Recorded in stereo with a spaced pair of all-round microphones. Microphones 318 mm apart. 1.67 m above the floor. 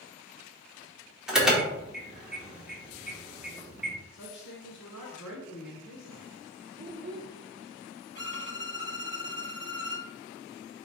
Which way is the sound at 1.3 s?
Centre (ahead or behind).